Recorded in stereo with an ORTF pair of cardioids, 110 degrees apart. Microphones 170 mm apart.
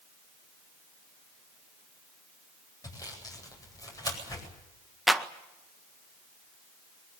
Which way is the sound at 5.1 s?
Straight ahead.